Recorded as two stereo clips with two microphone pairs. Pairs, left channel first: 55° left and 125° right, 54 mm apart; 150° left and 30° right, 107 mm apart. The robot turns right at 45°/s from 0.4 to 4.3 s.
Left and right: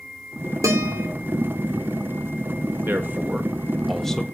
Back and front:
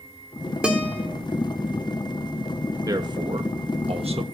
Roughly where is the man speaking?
Right.